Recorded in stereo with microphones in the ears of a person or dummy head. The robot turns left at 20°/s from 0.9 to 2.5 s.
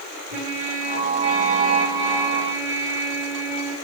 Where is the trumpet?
125° right, 3 m; by 3.7 s 155° right, 3 m.